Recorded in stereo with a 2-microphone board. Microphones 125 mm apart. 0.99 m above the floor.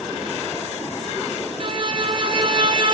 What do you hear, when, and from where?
1.6 s a violin: 40° right (ahead or behind), 1.6 m